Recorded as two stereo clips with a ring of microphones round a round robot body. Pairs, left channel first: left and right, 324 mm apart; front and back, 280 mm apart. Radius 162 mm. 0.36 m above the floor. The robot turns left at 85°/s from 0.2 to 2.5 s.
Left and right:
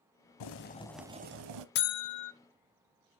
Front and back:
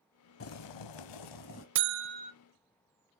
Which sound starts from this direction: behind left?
A buzzer, at 1.8 s.